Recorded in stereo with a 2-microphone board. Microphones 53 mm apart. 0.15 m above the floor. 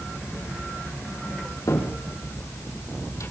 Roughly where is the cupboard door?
Left.